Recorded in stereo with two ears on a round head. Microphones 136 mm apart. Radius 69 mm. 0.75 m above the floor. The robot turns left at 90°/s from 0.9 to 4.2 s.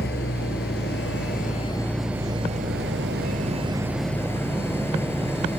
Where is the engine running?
100° left; by 5.6 s 165° left.